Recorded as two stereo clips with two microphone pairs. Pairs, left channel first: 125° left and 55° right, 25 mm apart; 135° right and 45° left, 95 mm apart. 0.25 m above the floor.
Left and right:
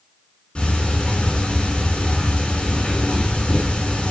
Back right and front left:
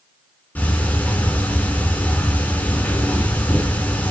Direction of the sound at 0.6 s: 155° left.